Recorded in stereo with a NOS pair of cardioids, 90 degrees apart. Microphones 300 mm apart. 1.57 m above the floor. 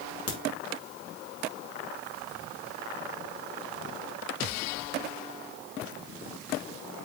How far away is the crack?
About 3.5 m.